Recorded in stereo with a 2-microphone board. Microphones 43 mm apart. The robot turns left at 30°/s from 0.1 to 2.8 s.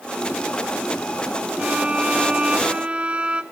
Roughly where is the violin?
Right.